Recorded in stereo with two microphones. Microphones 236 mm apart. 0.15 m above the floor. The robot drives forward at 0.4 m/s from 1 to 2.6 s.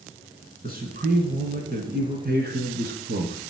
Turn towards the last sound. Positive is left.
turn(degrees=-40)  # may be behind; listen again after turning